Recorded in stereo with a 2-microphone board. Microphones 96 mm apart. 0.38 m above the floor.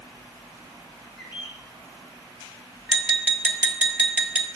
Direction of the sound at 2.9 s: 15° right (ahead or behind).